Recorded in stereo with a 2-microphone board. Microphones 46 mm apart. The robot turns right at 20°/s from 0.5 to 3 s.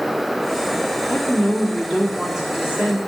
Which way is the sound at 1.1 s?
170° left.